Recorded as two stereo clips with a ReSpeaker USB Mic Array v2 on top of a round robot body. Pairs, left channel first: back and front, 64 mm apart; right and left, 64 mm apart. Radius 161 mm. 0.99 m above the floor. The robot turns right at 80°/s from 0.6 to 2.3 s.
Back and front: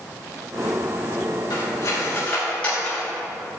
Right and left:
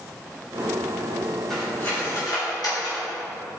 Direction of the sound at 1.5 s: 175° right.